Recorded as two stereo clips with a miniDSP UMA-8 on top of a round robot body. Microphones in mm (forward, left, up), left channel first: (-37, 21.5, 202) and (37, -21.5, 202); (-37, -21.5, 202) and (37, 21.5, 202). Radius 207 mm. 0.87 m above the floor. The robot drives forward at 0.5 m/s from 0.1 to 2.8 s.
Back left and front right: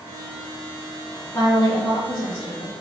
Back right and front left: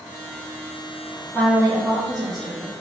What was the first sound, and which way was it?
A woman speaking, 100° left.